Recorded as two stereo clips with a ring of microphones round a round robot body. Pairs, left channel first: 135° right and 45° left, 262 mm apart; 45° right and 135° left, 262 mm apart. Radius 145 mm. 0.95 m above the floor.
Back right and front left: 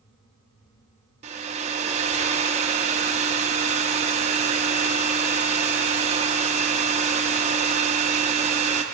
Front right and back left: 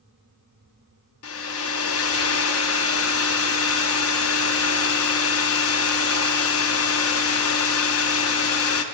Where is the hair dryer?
20° right, 0.5 m.